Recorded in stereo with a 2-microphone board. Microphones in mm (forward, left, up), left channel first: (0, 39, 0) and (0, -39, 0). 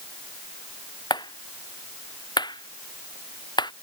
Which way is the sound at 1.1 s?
70° left (ahead or behind).